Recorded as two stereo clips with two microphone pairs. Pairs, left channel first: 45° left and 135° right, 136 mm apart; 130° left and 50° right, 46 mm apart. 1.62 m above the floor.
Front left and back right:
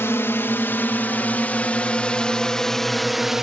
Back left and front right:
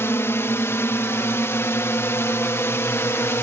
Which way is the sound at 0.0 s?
115° left.